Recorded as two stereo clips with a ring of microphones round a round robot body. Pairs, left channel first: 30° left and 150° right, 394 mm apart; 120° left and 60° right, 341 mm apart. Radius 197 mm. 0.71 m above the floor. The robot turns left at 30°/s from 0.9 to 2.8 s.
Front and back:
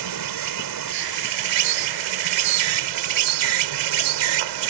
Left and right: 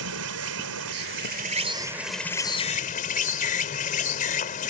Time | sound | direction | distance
0.0 | an insect | 115° right | ?